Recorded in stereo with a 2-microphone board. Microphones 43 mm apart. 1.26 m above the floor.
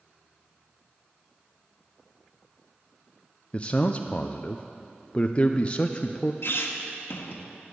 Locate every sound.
3.5 s a man speaking: 25° left (ahead or behind), 0.5 m
6.4 s a squeak: 65° left (ahead or behind), 1.4 m